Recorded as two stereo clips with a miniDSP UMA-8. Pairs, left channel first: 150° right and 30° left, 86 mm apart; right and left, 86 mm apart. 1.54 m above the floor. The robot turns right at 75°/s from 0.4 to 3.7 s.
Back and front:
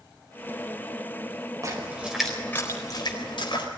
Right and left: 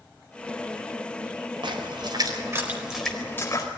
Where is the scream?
I don't hear a scream.